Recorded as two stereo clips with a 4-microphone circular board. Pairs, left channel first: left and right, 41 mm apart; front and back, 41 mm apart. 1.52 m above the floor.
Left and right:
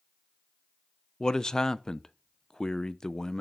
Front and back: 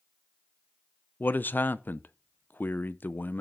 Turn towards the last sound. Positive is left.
turn(degrees=20)